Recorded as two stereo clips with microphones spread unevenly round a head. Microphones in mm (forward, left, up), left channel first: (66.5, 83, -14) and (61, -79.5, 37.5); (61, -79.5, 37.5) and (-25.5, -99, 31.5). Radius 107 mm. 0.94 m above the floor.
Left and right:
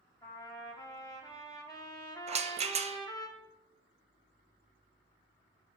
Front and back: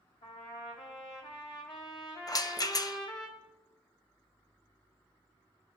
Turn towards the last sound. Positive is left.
turn(degrees=-40)